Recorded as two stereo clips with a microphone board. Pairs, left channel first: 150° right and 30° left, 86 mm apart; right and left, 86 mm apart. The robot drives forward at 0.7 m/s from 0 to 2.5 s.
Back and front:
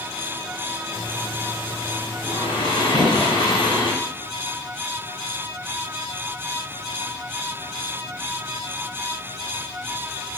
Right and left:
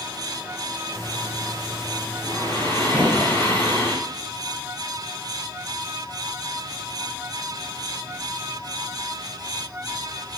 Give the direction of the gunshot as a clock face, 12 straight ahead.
7 o'clock.